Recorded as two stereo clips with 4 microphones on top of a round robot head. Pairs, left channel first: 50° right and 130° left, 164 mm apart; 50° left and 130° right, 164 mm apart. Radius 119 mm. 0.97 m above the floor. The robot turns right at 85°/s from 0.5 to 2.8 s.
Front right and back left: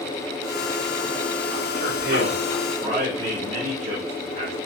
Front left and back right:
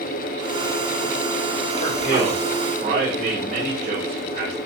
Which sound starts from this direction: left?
A man speaking, at 1.7 s.